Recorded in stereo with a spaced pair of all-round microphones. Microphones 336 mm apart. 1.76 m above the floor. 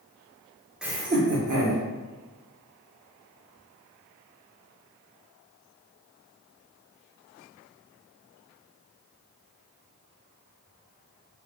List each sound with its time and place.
0.8 s laughter: centre (ahead or behind), 0.7 m; by 1.8 s 75° right (ahead or behind), 1.0 m